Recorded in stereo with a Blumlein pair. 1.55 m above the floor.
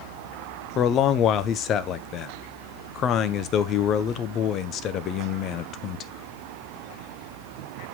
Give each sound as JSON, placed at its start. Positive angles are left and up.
{"t": 0.8, "sound": "a man speaking", "azimuth_deg": 30, "distance_m": 0.9}